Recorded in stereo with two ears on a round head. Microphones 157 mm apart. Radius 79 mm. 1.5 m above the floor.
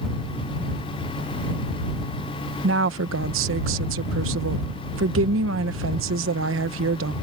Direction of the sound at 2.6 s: 85° right.